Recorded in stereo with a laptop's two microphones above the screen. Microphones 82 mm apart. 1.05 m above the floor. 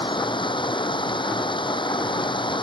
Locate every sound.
0.0 s running water: 85° left